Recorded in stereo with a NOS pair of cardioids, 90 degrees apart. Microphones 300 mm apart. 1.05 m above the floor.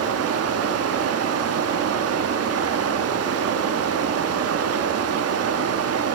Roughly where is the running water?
Ahead right.